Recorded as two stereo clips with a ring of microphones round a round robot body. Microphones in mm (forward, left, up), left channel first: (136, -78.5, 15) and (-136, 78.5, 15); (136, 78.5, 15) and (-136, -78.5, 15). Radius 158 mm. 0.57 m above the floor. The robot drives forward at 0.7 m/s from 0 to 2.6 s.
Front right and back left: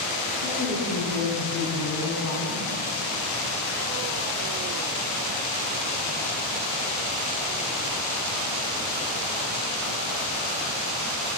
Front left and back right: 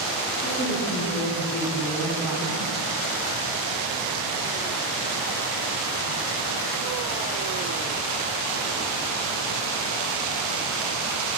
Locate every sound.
0.4 s a woman speaking: 35° right, 2.5 m; by 2.7 s 75° right, 1.5 m